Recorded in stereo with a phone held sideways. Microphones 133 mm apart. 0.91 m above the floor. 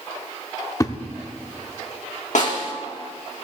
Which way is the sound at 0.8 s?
25° left (ahead or behind).